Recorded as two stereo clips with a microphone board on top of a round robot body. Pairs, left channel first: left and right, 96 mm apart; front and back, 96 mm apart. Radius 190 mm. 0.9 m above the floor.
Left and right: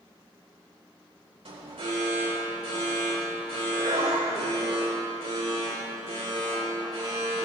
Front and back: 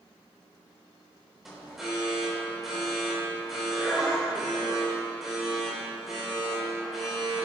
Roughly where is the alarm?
Right.